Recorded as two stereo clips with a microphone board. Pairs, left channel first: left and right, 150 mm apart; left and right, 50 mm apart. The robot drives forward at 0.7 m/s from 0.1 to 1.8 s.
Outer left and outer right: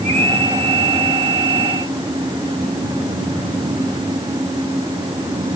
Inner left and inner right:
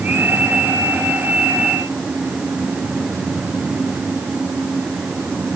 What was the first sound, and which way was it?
Only background noise.